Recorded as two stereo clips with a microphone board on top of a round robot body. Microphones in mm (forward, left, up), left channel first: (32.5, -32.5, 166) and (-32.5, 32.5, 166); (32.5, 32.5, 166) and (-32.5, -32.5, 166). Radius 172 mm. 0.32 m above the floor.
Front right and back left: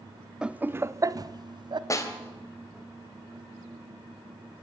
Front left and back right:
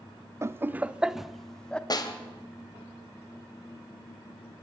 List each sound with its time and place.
0.4 s laughter: 155° right, 0.9 m; by 1.8 s 125° left, 1.2 m
1.9 s a snare drum: 5° left, 2.5 m